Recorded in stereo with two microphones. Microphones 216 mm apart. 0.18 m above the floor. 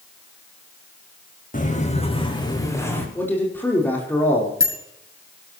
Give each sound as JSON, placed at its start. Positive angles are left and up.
{"t": 1.5, "sound": "footsteps", "side_deg": 40, "distance_m": 3.5}
{"t": 3.1, "sound": "a man speaking", "side_deg": 10, "distance_m": 6.0}
{"t": 4.6, "sound": "a bicycle bell", "side_deg": 75, "distance_m": 5.0}